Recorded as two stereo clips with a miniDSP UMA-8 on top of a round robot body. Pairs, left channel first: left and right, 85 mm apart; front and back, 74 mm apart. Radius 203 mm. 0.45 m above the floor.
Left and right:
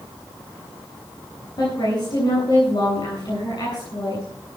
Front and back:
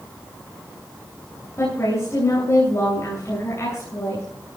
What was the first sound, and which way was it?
A woman speaking, 50° left.